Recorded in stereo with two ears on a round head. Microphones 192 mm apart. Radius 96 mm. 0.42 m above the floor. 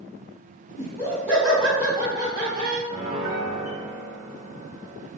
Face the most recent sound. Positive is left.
turn(degrees=-15)  # may be behind; listen again after turning